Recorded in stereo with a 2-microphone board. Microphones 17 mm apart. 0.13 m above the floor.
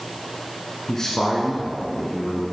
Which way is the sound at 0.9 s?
25° left (ahead or behind).